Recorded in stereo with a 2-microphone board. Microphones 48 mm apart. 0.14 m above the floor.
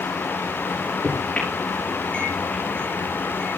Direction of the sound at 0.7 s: 20° left (ahead or behind).